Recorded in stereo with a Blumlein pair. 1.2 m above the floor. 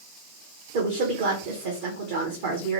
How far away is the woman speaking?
About 0.8 m.